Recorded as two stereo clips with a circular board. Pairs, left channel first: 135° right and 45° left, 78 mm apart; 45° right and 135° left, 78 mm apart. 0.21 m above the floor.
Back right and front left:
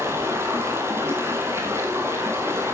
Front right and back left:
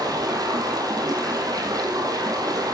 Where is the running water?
100° left, 2.5 m.